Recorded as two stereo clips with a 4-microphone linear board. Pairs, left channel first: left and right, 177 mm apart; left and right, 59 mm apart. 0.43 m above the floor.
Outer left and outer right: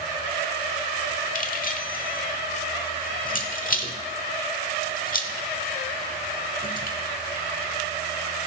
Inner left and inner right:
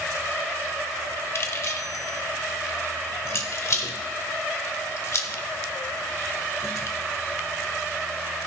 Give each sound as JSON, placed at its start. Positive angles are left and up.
{"t": 1.4, "sound": "keys jangling", "side_deg": 50, "distance_m": 1.0}